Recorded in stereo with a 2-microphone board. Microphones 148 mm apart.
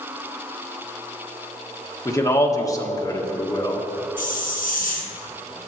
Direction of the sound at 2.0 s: 25° left (ahead or behind).